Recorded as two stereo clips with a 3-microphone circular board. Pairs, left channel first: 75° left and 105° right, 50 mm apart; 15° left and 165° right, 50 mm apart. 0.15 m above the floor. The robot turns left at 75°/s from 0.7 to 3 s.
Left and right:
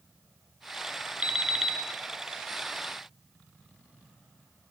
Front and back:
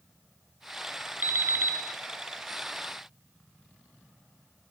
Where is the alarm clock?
155° right, 0.9 m; by 1.8 s 165° left, 0.9 m.